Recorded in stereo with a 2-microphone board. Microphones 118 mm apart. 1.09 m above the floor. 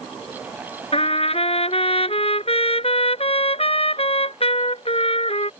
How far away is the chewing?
I don't hear chewing.